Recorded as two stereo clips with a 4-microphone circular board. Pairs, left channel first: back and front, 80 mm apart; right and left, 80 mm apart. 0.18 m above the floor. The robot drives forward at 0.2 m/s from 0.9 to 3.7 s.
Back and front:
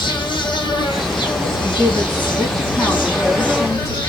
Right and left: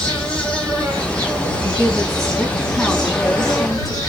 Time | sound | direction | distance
0.0 | an insect | 165° right | 1.1 m
1.6 | a woman speaking | 175° right | 1.4 m